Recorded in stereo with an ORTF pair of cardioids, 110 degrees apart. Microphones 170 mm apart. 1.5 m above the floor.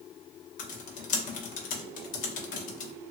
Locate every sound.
0.6 s typing on a keyboard: 50° left, 0.9 m